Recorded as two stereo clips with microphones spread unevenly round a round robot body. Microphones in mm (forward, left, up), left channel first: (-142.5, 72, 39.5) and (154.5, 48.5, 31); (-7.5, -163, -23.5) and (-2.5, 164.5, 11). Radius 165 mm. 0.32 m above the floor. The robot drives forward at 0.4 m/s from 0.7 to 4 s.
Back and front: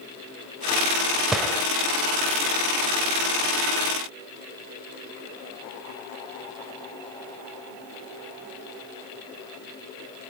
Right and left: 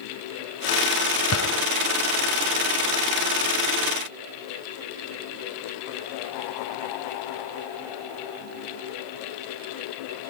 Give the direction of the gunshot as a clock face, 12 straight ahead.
3 o'clock.